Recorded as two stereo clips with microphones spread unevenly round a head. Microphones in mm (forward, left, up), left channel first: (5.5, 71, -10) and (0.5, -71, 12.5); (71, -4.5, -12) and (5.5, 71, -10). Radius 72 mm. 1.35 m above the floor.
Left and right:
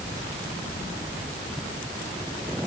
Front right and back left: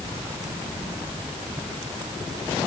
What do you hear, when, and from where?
Only background noise.